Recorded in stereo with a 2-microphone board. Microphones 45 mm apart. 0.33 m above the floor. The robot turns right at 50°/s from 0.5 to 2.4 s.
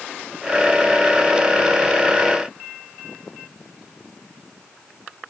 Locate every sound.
Only background noise.